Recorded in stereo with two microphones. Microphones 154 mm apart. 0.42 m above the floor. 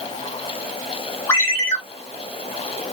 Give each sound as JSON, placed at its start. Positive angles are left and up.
{"t": 1.3, "sound": "a ringtone", "side_deg": 15, "distance_m": 1.5}